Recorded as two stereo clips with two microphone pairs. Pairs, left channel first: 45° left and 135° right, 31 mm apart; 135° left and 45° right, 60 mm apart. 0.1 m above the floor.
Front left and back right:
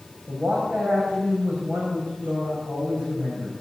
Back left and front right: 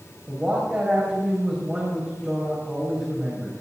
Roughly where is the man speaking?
Behind right.